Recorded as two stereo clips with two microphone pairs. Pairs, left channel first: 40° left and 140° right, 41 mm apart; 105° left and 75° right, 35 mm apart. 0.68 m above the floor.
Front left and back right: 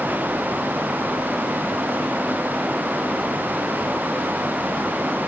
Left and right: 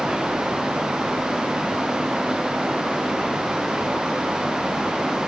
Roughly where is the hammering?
I don't hear hammering.